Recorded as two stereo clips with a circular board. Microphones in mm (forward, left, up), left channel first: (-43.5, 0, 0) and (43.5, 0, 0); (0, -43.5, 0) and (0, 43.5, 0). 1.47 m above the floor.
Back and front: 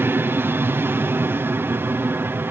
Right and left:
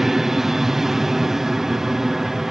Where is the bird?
No bird in this recording.